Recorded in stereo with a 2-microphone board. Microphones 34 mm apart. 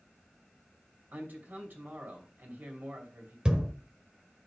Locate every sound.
1.1 s a man speaking: 65° right (ahead or behind), 2.5 m
3.5 s a thud: 25° right (ahead or behind), 1.1 m